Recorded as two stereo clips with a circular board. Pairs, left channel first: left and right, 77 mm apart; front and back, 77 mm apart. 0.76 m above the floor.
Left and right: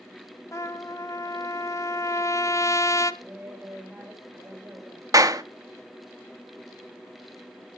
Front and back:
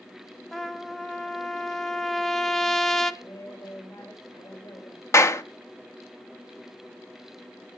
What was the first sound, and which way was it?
A trumpet, 85° left.